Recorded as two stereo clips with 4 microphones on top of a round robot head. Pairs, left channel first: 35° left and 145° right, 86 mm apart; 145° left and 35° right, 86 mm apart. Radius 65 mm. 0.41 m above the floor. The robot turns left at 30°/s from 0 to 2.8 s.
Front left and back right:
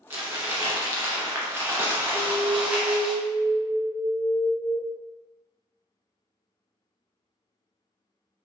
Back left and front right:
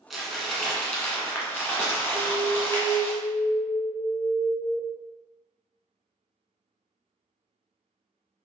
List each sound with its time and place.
0.1 s crumpling: 115° right, 1.3 m; by 3.1 s 160° left, 1.3 m
2.1 s an alarm: 40° left, 1.2 m; by 4.8 s 20° left, 1.2 m